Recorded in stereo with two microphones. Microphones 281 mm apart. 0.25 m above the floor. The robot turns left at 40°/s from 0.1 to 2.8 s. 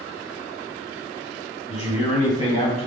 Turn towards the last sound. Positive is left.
turn(degrees=25)  # may be behind; listen again after turning